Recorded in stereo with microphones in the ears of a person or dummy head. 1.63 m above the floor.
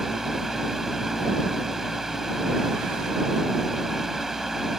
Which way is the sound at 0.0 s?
Centre (ahead or behind).